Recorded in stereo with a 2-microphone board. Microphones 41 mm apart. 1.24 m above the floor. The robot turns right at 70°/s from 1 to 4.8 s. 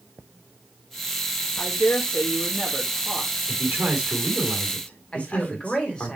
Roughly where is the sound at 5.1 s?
Left.